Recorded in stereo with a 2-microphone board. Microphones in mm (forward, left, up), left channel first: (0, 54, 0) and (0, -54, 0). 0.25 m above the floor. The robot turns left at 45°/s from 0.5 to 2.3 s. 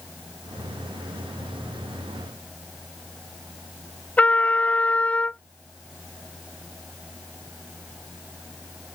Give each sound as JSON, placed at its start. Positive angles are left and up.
{"t": 4.2, "sound": "a trumpet", "side_deg": 15}